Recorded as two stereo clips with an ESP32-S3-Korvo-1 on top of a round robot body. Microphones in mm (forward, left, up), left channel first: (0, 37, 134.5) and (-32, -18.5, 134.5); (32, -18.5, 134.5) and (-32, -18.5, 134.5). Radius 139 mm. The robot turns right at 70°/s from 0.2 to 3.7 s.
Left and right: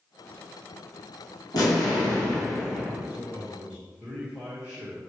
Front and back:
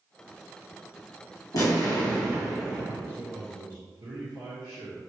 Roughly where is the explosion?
Ahead left.